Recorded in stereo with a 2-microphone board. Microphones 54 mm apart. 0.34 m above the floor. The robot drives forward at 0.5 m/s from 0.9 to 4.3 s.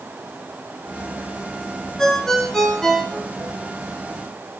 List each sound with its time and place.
2.0 s a ringtone: 5° left (ahead or behind), 2 m